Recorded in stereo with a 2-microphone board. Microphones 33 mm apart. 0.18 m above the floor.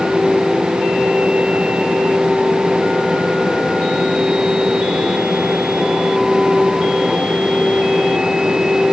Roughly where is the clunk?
I don't hear a clunk.